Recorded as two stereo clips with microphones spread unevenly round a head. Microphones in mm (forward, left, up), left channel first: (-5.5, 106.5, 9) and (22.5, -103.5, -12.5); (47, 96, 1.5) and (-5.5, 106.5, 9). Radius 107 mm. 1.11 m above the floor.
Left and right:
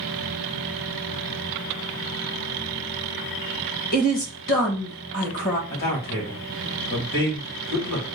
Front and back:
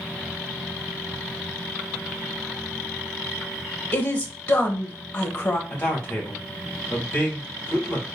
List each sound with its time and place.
3.9 s a woman speaking: 45° left, 1.5 m
5.7 s a man speaking: 50° left, 2.5 m